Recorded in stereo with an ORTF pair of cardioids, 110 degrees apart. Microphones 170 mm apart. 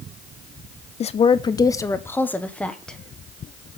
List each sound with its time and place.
1.0 s a woman speaking: 40° left, 0.6 m; by 3.0 s 5° left, 1.4 m